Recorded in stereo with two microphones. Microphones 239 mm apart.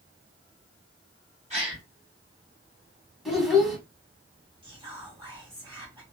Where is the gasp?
30° right (ahead or behind), 1.8 m.